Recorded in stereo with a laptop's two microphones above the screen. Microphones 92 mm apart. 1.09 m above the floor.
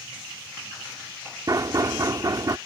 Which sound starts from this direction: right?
Knocking, at 1.5 s.